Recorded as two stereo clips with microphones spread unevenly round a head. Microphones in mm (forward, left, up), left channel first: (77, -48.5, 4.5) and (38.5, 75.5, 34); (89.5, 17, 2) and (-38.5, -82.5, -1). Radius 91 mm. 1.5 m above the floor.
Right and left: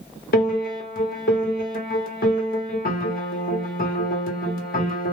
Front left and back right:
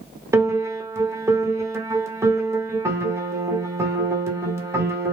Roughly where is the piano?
Right.